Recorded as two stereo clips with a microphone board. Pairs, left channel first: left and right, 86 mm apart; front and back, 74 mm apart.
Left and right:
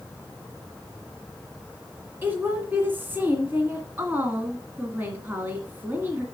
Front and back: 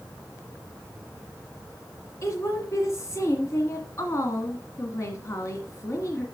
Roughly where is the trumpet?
No trumpet in this recording.